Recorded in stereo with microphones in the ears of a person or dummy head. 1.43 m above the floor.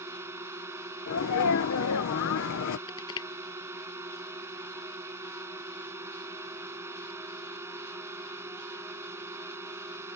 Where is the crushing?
25° left (ahead or behind).